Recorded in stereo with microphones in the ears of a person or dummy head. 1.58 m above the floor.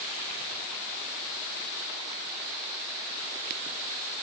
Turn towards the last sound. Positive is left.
No sound to turn to.